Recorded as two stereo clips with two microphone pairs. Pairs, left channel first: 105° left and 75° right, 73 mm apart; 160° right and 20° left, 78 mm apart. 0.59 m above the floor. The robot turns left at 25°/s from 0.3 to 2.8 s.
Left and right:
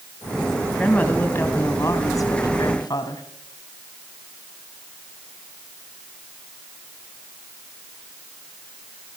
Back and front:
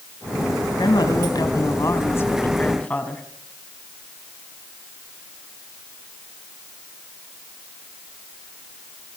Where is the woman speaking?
175° left, 3.5 m; by 3.2 s 125° left, 3.5 m.